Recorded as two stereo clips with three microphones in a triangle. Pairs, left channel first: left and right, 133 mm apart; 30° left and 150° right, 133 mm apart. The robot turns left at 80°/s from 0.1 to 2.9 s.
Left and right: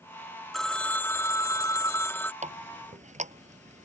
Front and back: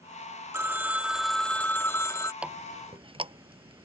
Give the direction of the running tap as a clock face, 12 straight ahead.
2 o'clock.